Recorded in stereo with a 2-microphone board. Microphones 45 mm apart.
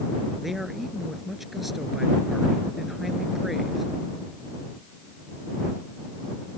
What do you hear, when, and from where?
0.4 s a man speaking: 5° right (ahead or behind)